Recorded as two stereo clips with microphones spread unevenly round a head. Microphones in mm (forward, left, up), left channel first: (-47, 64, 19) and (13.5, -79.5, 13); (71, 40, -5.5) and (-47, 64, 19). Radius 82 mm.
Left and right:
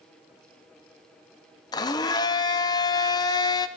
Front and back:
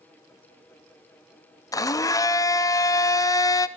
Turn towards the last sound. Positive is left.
turn(degrees=45)